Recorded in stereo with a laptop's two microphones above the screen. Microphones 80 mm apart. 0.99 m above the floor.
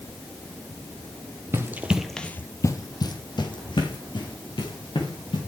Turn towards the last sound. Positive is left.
turn(degrees=80)